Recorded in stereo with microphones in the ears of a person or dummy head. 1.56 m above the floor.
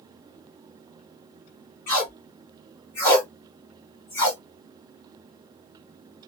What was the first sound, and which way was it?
Tape being pulled, 15° left (ahead or behind).